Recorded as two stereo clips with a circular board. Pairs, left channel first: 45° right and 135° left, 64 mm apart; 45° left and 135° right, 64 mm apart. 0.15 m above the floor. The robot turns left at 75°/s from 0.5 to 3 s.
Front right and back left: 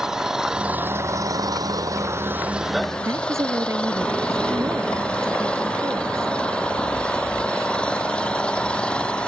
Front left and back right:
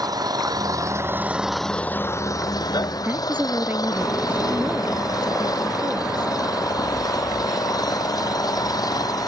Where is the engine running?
145° right; by 9.3 s 30° left.